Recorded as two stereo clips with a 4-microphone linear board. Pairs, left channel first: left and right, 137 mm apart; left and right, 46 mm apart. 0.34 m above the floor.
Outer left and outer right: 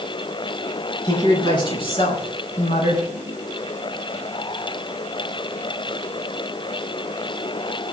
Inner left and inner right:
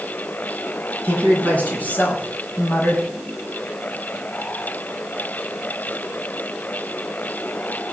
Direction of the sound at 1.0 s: 35° left (ahead or behind).